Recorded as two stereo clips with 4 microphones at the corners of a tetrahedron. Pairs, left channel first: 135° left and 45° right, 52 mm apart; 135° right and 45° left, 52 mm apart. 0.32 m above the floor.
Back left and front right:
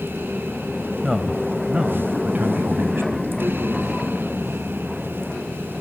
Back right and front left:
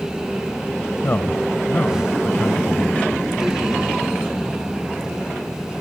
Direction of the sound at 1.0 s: 130° right.